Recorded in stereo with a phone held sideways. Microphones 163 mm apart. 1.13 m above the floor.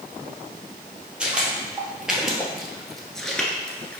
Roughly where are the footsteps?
Centre.